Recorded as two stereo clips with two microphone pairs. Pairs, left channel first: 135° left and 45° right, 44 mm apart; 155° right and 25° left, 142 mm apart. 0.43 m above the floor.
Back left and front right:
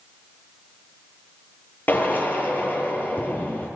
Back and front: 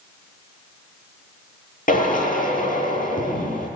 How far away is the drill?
About 9.5 m.